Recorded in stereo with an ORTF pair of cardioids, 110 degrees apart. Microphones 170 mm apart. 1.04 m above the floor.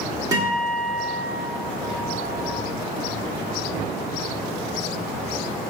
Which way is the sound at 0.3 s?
20° right.